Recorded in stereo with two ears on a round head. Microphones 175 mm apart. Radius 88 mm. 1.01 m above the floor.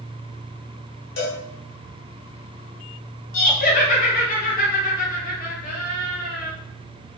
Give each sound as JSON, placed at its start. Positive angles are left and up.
{"t": 1.2, "sound": "a cowbell", "side_deg": 65, "distance_m": 1.3}
{"t": 3.3, "sound": "laughter", "side_deg": 45, "distance_m": 1.1}